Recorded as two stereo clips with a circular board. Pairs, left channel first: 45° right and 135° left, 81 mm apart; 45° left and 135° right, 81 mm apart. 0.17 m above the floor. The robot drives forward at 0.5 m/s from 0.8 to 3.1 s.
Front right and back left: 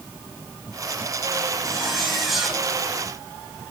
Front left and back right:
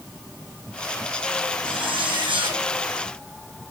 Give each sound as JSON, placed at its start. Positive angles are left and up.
{"t": 1.6, "sound": "a zipper", "azimuth_deg": -130, "distance_m": 4.0}